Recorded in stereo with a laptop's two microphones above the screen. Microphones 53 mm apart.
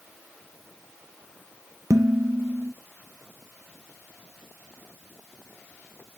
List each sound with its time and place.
1.9 s dishes clattering: 80° right, 0.5 m